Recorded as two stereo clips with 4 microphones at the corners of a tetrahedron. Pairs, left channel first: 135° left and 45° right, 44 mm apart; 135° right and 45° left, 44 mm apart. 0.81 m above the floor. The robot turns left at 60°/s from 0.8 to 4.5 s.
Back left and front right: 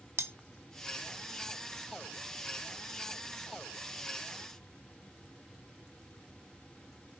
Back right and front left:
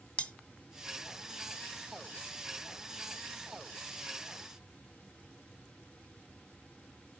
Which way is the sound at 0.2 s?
75° right.